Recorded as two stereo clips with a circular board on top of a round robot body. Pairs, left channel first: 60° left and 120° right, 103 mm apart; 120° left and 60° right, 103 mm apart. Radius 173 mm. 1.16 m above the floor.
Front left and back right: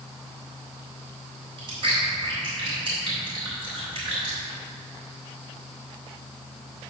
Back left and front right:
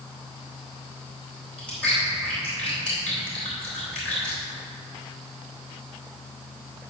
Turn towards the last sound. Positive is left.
turn(degrees=-160)